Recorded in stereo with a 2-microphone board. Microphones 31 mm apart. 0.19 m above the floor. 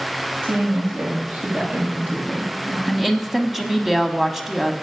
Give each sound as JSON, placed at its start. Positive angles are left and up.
{"t": 0.4, "sound": "a woman speaking", "side_deg": -70, "distance_m": 6.5}
{"t": 2.9, "sound": "a woman speaking", "side_deg": -10, "distance_m": 1.0}